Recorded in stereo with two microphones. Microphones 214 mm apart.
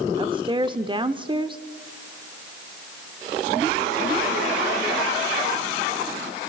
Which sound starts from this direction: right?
A woman speaking, at 0.2 s.